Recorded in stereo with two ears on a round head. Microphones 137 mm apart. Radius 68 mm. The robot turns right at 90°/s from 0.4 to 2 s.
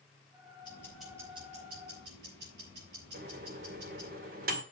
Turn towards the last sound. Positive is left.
turn(degrees=-65)  # may be behind; listen again after turning